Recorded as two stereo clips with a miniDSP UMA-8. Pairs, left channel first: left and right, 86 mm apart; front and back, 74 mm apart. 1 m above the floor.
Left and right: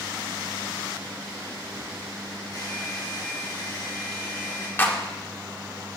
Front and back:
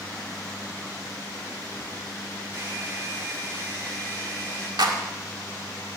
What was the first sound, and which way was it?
A hair dryer, 135° left.